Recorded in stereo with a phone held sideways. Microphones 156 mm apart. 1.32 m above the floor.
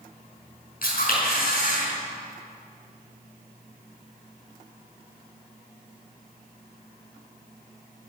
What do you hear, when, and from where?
0.8 s a camera shutter: 65° left (ahead or behind), 5.5 m